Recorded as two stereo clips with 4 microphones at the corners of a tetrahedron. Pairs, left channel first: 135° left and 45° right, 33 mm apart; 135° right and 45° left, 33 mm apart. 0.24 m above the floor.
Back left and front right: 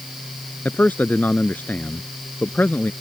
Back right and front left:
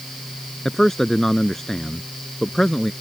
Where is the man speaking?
145° left.